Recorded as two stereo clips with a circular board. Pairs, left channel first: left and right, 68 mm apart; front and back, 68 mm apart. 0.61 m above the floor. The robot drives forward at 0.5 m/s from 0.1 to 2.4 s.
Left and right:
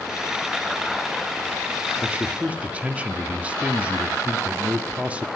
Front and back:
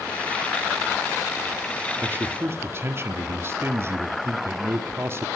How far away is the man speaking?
About 1.0 m.